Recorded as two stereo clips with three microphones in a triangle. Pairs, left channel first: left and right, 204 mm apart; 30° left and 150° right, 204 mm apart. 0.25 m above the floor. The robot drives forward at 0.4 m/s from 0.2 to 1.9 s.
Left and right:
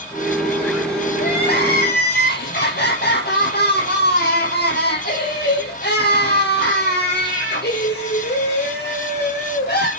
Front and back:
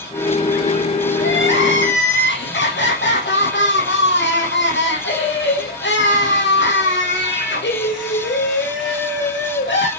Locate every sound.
1.2 s crying: 55° left, 5.5 m